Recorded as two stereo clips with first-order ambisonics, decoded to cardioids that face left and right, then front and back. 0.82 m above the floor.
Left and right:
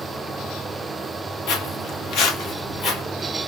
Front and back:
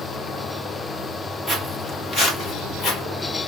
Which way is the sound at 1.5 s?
80° left.